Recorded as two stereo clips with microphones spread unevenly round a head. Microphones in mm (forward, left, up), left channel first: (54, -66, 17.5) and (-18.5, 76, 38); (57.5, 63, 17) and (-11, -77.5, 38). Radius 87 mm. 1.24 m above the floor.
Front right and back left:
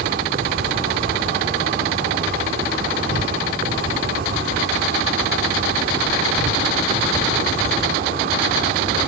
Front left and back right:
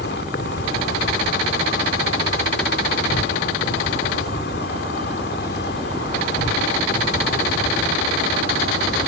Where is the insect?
100° left.